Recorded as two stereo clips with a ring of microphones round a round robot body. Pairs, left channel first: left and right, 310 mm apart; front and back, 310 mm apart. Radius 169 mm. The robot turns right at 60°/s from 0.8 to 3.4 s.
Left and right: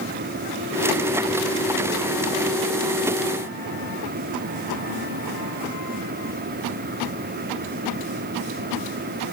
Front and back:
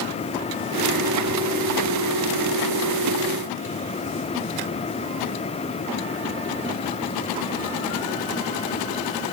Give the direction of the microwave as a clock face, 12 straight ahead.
I don't hear a microwave.